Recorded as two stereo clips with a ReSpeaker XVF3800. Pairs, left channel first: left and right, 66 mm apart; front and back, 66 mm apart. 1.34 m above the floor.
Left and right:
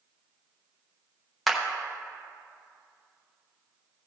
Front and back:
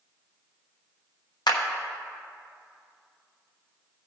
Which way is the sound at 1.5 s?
Straight ahead.